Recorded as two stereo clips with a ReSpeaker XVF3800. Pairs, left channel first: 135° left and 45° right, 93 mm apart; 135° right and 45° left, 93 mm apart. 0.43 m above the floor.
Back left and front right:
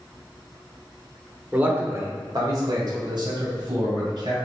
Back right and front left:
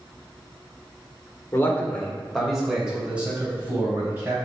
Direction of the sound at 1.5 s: 100° right.